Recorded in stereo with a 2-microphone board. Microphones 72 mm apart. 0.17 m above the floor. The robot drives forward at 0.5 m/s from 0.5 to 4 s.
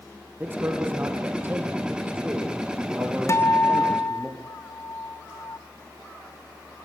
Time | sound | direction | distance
0.4 | a man speaking | 25° right (ahead or behind) | 4.5 m
3.3 | a guitar | 40° left (ahead or behind) | 0.8 m